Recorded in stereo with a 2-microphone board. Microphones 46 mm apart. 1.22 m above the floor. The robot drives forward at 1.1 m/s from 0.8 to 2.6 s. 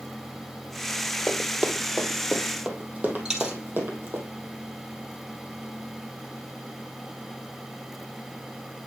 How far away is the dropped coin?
About 1.9 m.